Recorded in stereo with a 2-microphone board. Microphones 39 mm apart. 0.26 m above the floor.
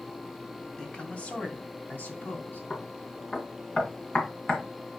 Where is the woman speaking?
30° left (ahead or behind), 1.7 m; by 2.6 s 60° left (ahead or behind), 3 m.